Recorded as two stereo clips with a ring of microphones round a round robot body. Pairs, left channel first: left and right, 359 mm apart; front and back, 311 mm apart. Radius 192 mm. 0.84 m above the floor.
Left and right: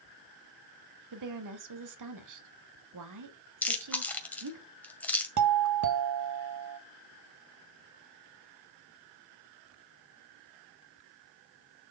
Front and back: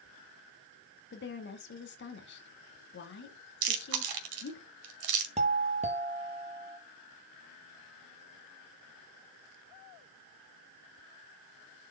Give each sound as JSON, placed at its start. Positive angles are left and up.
{"t": 1.1, "sound": "a woman speaking", "azimuth_deg": -55, "distance_m": 1.7}
{"t": 3.6, "sound": "chewing", "azimuth_deg": 175, "distance_m": 1.7}
{"t": 5.4, "sound": "a doorbell", "azimuth_deg": -115, "distance_m": 1.2}